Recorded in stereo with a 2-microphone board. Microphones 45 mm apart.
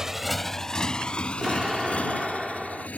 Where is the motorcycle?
10° right (ahead or behind); by 3.0 s 35° left (ahead or behind).